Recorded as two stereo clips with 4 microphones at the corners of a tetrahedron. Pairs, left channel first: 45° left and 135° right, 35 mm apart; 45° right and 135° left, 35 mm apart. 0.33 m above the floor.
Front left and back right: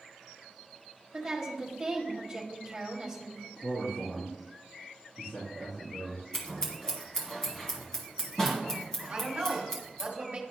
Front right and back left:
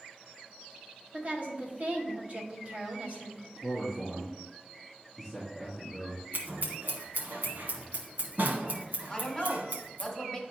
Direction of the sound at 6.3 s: 120° left.